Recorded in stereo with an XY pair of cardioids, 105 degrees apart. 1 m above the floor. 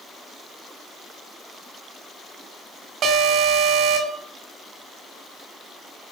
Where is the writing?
No writing in this recording.